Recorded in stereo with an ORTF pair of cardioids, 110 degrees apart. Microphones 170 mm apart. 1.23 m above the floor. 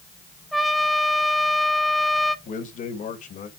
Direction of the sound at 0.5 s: Straight ahead.